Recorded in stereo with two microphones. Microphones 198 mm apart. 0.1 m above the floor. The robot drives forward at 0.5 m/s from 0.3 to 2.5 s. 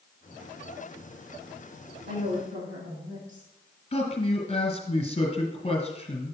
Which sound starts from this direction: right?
A woman speaking, at 2.1 s.